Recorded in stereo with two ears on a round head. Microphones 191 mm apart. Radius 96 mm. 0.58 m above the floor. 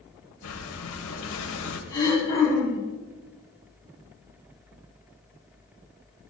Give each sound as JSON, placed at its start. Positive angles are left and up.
{"t": 0.4, "sound": "breathing", "side_deg": 75, "distance_m": 2.0}
{"t": 1.9, "sound": "throat clearing", "side_deg": 15, "distance_m": 7.0}